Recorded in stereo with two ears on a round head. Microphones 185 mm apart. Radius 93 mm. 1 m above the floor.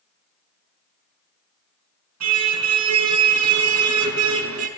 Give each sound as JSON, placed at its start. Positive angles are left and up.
{"t": 2.2, "sound": "a car horn", "side_deg": -85, "distance_m": 6.0}